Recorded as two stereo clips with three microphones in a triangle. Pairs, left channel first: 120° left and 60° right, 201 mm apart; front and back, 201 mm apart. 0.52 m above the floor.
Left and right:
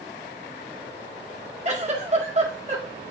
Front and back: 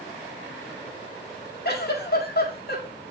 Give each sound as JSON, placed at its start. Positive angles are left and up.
{"t": 1.6, "sound": "a giggle", "azimuth_deg": -15, "distance_m": 1.6}